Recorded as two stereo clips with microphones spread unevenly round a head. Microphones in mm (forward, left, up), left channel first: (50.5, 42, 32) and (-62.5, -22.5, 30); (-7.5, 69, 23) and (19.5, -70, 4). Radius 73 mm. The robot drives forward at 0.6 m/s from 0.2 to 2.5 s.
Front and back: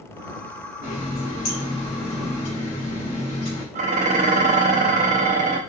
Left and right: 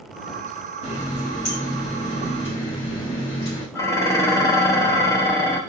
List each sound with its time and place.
0.8 s a running tap: 60° left, 3.5 m; by 3.6 s 75° left, 3 m
3.8 s dishes clattering: 175° left, 0.8 m